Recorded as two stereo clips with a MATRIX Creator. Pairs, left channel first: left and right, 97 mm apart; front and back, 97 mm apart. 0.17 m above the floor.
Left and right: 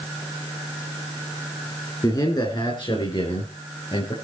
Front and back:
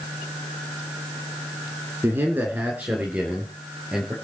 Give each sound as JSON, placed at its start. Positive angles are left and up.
{"t": 2.0, "sound": "a man speaking", "azimuth_deg": 120, "distance_m": 2.5}